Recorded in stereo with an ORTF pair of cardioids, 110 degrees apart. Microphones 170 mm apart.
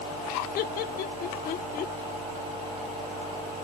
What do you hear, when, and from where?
0.6 s laughter: 65° left; by 1.9 s 60° left